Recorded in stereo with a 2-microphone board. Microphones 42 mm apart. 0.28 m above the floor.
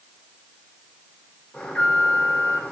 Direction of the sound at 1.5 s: 35° left (ahead or behind).